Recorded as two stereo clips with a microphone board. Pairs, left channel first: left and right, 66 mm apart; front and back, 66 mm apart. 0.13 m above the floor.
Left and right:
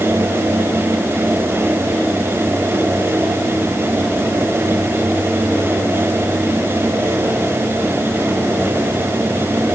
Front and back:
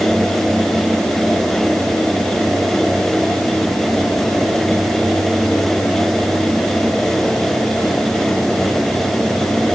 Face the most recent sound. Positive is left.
No sound to turn to.